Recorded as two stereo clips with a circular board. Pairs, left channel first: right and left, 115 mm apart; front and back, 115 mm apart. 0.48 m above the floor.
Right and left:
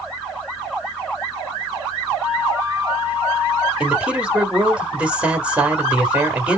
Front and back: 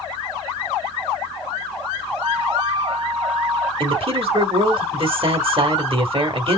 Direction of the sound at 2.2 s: 155° left.